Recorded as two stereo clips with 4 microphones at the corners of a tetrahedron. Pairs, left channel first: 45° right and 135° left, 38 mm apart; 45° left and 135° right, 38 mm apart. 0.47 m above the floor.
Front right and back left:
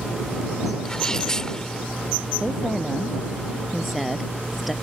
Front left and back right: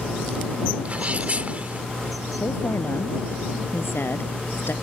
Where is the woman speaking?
45° left.